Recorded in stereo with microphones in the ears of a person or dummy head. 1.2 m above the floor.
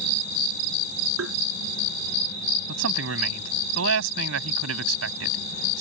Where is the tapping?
80° right.